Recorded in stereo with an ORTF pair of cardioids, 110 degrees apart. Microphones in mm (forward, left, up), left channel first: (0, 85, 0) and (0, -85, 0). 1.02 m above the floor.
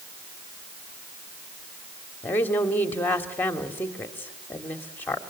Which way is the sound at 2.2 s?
10° left.